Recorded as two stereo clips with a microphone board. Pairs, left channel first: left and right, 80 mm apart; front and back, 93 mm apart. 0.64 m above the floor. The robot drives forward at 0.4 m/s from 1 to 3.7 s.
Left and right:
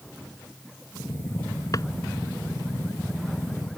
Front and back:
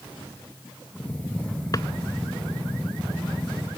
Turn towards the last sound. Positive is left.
turn(degrees=65)